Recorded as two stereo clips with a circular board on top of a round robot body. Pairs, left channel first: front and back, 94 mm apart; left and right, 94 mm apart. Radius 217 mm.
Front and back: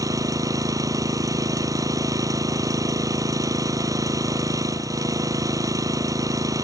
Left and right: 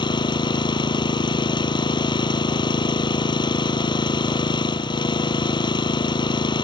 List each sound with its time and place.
0.0 s an engine running: 130° left